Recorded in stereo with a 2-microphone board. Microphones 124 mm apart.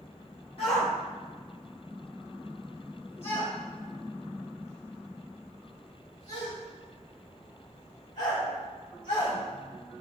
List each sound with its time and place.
0.6 s a shout: 50° left (ahead or behind), 1.3 m; by 9.4 s 70° left (ahead or behind), 5.5 m